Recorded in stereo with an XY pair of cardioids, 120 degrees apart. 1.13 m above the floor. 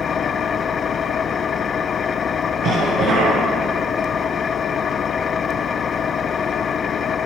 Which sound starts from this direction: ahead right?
A cough, at 2.6 s.